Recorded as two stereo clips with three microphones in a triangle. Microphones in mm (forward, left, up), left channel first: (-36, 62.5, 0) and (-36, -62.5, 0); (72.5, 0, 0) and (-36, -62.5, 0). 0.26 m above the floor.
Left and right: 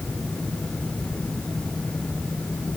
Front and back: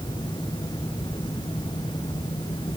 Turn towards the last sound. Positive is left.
No sound to turn to.